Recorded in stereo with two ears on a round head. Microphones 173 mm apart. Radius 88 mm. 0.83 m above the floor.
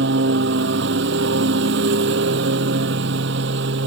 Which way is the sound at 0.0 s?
55° right (ahead or behind).